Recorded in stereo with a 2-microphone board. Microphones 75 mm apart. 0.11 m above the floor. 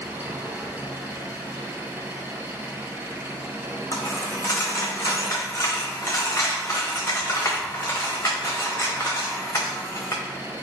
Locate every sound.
0.0 s an engine running: 25° right (ahead or behind), 0.9 m
3.9 s a dropped coin: 40° left (ahead or behind), 1.5 m